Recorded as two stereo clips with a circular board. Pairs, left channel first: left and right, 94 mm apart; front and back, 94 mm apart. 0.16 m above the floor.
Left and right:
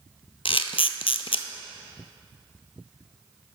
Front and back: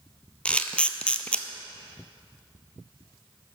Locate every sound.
0.5 s a camera shutter: 80° left, 0.5 m